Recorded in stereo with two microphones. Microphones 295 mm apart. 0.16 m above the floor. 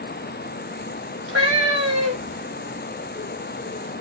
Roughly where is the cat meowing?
Right.